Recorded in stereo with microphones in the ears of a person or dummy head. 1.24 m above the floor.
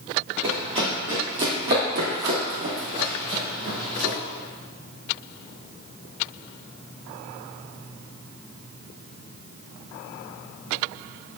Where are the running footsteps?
30° right (ahead or behind), 1.8 m; by 4.2 s 60° right (ahead or behind), 3.5 m.